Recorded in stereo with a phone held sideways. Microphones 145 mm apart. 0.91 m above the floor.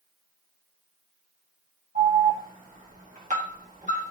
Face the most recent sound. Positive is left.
turn(degrees=-60)  # may be behind; listen again after turning